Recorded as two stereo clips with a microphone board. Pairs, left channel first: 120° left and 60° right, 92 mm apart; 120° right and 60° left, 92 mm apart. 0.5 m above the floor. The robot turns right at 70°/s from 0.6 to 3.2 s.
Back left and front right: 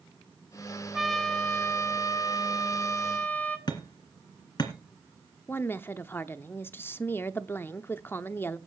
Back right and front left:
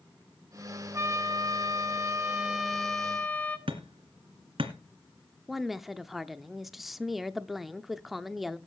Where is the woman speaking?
150° left, 0.7 m.